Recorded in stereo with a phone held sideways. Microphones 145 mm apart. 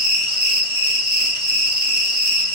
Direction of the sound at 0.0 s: 30° right (ahead or behind).